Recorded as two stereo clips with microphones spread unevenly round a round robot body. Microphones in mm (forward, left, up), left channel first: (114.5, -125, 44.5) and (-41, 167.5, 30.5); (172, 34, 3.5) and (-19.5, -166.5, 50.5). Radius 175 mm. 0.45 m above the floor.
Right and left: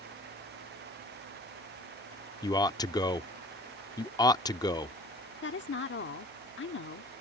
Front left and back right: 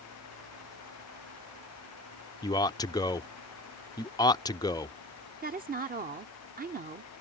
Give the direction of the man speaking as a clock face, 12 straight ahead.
12 o'clock.